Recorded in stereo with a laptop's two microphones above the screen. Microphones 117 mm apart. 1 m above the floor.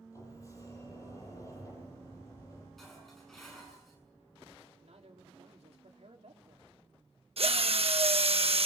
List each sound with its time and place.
0.1 s a sliding door: 30° left (ahead or behind), 9 m
2.8 s dishes clattering: centre (ahead or behind), 7 m
4.8 s a man speaking: 75° right (ahead or behind), 2.5 m
7.4 s a drill: 65° right (ahead or behind), 1.0 m